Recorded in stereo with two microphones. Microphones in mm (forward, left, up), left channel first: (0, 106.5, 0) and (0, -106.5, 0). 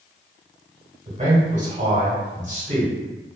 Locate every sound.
1.1 s a man speaking: 35° right (ahead or behind), 1.1 m